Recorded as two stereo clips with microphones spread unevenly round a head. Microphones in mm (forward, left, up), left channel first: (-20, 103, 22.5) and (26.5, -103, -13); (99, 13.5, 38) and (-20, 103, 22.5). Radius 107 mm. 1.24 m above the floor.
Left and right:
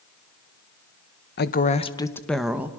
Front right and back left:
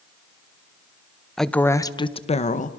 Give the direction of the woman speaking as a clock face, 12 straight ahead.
10 o'clock.